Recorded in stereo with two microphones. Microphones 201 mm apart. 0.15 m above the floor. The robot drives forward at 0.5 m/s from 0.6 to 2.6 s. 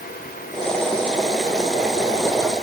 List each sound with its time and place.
Only background noise.